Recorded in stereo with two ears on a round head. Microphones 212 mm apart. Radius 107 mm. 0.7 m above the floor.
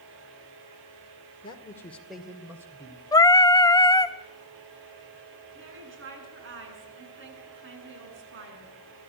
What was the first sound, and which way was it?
A man speaking, 20° left (ahead or behind).